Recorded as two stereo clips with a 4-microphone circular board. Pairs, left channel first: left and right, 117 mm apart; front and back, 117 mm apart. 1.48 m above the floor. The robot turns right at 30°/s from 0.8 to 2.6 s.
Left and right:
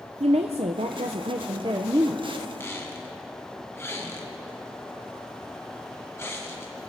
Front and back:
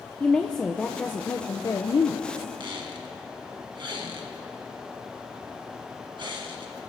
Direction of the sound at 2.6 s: 150° left.